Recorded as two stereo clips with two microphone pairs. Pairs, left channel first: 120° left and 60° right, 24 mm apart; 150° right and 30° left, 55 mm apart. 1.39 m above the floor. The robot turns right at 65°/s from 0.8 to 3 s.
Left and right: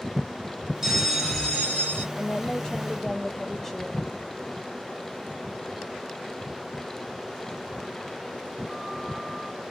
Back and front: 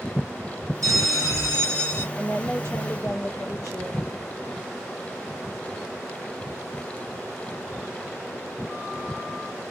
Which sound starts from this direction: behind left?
A woman speaking, at 2.1 s.